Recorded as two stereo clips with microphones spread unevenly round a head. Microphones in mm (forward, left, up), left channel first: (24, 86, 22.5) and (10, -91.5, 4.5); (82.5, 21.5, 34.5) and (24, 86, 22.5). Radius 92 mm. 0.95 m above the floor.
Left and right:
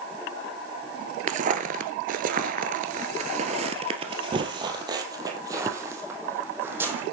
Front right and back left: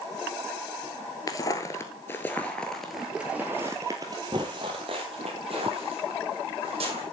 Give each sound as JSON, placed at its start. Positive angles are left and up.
{"t": 1.3, "sound": "footsteps", "azimuth_deg": -55, "distance_m": 1.2}